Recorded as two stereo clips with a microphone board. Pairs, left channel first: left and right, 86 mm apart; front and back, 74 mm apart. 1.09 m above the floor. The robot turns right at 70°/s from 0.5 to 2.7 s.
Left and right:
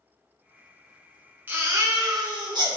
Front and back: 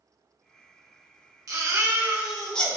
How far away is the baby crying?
About 1.1 m.